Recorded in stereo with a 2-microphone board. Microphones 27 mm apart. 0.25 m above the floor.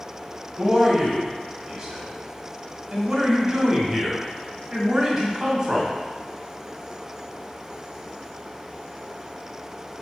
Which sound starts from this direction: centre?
A man speaking, at 0.6 s.